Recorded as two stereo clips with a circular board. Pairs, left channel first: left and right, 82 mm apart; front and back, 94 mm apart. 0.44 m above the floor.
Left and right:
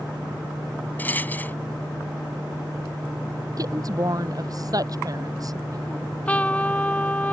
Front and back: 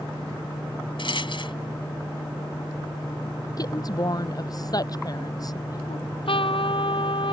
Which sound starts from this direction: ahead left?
A rattle, at 1.0 s.